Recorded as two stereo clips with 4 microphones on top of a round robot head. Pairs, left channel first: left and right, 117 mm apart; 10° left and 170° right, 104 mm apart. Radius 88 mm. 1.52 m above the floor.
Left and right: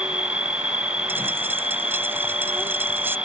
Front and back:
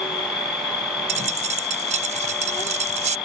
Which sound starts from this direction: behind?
A dropped coin, at 1.1 s.